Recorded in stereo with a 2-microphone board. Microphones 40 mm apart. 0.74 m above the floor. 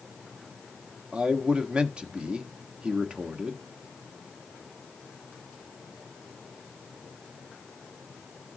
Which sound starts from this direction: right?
A man speaking, at 1.1 s.